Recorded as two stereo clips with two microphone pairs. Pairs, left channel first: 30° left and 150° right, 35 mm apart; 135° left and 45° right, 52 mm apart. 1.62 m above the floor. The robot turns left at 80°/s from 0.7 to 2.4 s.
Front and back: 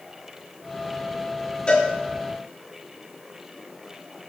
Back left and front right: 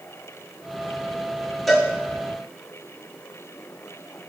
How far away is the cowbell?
About 1.4 m.